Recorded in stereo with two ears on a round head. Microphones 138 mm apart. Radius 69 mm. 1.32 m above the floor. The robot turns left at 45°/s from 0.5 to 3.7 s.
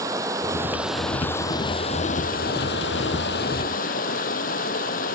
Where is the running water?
160° right; by 5.2 s 60° left.